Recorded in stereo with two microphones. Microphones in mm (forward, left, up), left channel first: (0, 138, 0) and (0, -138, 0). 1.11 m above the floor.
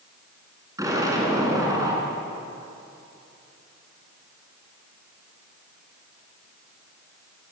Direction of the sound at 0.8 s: 10° right (ahead or behind).